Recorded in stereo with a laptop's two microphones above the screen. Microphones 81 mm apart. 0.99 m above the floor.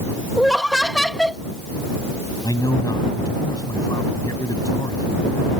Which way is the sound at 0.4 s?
5° left (ahead or behind).